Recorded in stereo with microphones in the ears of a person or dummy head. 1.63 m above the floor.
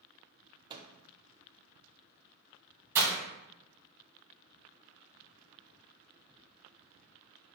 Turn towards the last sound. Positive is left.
turn(degrees=-15)  # may be behind; listen again after turning